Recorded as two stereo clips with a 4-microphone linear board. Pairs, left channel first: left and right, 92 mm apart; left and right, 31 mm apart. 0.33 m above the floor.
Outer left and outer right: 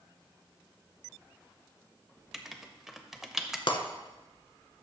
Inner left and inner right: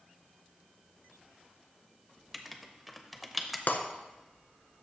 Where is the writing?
5° right (ahead or behind), 0.6 m.